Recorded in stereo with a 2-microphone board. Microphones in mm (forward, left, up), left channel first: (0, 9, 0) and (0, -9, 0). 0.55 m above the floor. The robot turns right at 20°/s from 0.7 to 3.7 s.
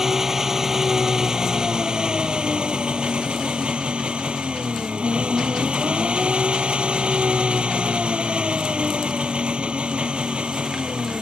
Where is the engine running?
150° right; by 11.2 s 90° right.